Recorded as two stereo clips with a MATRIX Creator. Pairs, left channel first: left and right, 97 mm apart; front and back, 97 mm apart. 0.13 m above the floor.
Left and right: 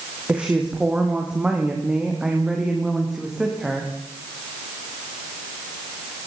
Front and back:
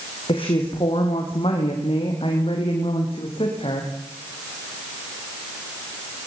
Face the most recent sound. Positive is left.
turn(degrees=-5)